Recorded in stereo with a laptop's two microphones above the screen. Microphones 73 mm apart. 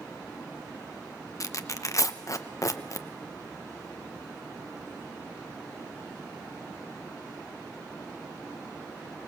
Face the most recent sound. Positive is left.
turn(degrees=45)  # may be behind; listen again after turning